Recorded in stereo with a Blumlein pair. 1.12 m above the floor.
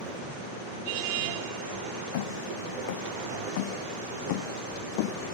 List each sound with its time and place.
2.1 s footsteps: 55° left; by 5.2 s 45° left